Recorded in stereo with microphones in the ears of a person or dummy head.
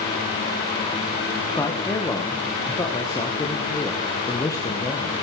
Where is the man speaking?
15° left (ahead or behind), 1.2 m.